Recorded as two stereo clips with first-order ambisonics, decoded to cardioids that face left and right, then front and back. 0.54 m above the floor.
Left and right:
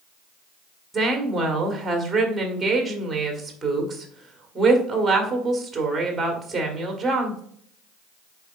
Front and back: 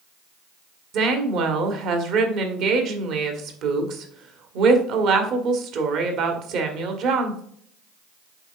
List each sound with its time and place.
0.9 s a woman speaking: 165° right, 1.4 m